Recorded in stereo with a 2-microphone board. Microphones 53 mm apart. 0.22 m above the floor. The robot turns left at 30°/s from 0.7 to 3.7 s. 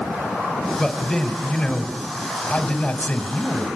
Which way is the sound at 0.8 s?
10° left (ahead or behind).